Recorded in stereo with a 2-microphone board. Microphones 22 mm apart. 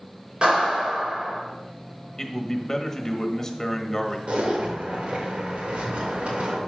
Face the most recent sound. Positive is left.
turn(degrees=-60)  # may be behind; listen again after turning